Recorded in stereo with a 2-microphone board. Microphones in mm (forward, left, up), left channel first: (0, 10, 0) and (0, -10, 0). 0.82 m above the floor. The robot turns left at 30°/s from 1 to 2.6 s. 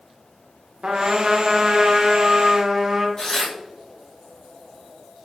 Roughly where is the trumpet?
Right.